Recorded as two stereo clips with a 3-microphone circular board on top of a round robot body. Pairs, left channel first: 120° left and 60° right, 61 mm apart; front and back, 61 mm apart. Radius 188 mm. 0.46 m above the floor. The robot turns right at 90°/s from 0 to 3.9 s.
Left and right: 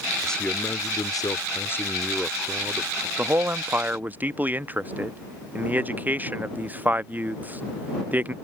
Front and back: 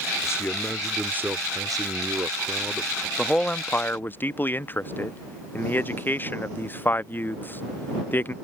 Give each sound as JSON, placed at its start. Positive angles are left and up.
{"t": 0.2, "sound": "a man speaking", "azimuth_deg": 35}
{"t": 3.2, "sound": "a man speaking", "azimuth_deg": -90}